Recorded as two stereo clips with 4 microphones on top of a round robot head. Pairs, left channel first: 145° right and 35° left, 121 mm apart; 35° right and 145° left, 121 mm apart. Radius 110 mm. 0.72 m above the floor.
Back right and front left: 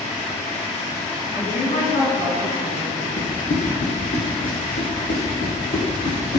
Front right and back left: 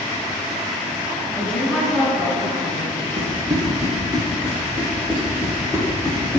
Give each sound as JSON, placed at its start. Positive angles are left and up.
{"t": 1.3, "sound": "a woman speaking", "azimuth_deg": -120, "distance_m": 5.5}
{"t": 3.2, "sound": "running footsteps", "azimuth_deg": -165, "distance_m": 4.5}